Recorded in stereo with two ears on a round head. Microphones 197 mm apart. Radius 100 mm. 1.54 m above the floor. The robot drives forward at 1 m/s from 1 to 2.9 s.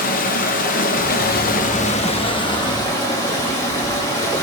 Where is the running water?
40° left (ahead or behind), 0.9 m; by 4.4 s 20° left (ahead or behind), 1.8 m.